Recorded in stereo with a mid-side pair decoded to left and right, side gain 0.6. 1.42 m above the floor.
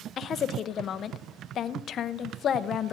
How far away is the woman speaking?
About 0.7 m.